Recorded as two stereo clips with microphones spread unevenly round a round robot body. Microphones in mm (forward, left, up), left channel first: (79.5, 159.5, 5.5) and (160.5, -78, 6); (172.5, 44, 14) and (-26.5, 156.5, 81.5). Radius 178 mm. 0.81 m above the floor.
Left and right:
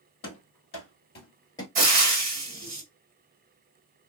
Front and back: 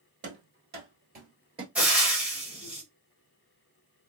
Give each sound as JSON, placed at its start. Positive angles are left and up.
{"t": 0.2, "sound": "running footsteps", "azimuth_deg": 135, "distance_m": 1.8}
{"t": 1.8, "sound": "frying", "azimuth_deg": -105, "distance_m": 1.2}